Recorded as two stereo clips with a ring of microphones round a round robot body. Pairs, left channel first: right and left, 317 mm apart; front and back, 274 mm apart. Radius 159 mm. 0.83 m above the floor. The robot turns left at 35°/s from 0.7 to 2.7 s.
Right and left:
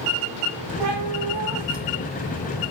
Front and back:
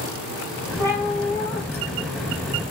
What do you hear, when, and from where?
0.8 s a cat meowing: 105° left, 1.0 m; by 2.7 s 35° left, 1.0 m